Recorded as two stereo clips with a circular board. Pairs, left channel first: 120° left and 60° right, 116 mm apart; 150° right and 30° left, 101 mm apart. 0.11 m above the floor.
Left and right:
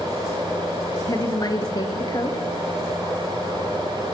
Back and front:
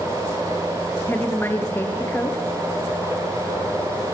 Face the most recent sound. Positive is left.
turn(degrees=155)